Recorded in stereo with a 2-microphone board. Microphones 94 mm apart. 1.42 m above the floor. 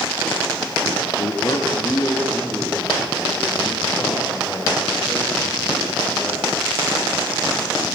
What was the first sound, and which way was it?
A man speaking, 55° left (ahead or behind).